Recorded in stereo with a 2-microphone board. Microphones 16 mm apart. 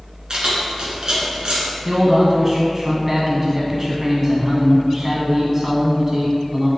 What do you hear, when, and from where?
0.3 s keys jangling: 50° right (ahead or behind), 1.7 m
1.9 s a man speaking: 20° right (ahead or behind), 1.0 m